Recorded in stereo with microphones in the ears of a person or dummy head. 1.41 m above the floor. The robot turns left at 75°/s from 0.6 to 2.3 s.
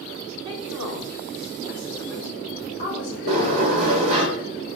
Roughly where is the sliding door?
Right.